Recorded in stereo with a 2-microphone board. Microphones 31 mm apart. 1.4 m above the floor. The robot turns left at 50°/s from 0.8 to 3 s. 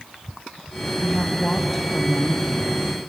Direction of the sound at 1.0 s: 55° left.